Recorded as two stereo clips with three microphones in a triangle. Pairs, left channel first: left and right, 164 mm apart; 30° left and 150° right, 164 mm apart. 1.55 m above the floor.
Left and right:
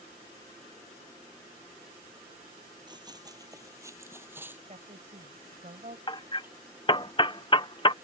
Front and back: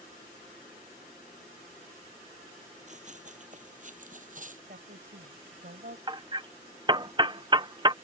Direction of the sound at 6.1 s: 150° left.